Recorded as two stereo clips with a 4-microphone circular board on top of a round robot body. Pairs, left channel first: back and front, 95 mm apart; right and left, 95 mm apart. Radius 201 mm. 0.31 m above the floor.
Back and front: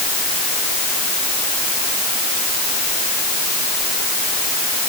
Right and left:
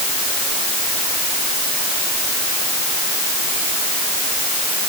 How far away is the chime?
I don't hear a chime.